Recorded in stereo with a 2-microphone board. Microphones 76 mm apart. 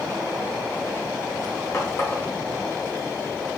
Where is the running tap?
35° left (ahead or behind), 0.9 m.